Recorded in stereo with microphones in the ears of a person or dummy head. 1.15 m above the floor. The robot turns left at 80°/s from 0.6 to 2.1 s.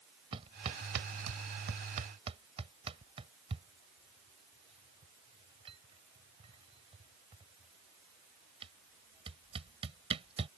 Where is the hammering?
30° right (ahead or behind).